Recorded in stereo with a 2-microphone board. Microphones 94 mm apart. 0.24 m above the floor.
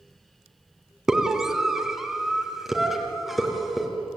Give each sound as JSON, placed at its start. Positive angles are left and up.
{"t": 1.1, "sound": "a scream", "side_deg": -5, "distance_m": 2.5}